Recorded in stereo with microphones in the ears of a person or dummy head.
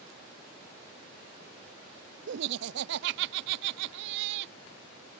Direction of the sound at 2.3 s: 60° right (ahead or behind).